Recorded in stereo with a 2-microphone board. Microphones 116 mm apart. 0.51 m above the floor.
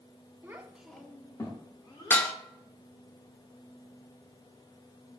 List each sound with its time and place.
0.4 s a child speaking: 20° right (ahead or behind), 0.6 m; by 2.3 s 40° left (ahead or behind), 1.1 m
2.1 s dishes clattering: 15° left (ahead or behind), 0.5 m